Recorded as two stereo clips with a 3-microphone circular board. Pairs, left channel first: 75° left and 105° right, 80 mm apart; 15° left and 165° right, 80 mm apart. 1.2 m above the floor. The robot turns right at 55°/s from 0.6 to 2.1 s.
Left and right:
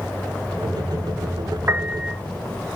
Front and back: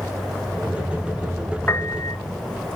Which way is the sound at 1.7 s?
45° right.